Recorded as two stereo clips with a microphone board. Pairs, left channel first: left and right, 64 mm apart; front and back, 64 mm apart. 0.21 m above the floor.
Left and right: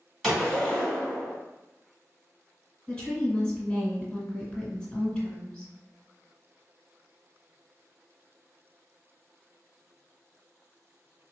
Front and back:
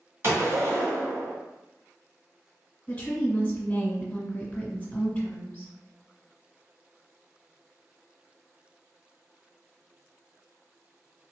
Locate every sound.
0.2 s a gunshot: 175° right, 1.7 m
2.9 s a woman speaking: 40° left, 1.2 m